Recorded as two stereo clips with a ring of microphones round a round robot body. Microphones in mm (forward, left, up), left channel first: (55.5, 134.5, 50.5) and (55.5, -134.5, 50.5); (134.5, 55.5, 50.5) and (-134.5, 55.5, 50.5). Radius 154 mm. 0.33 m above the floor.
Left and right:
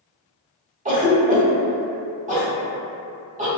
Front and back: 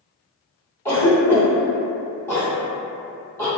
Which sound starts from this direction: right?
A cough, at 0.8 s.